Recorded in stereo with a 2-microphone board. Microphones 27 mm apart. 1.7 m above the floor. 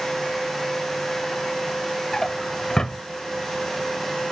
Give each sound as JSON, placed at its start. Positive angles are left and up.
{"t": 2.1, "sound": "a drawer", "side_deg": 20}